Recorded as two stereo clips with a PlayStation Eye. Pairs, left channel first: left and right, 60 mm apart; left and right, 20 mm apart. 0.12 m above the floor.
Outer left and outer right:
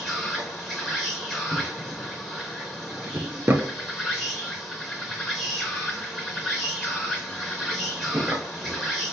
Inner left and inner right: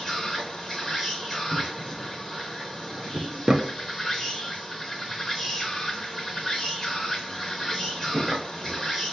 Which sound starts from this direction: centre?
An insect, at 0.0 s.